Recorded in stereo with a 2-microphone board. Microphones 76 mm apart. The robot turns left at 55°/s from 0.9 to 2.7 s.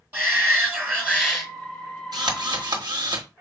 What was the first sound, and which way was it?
A shout, 155° right.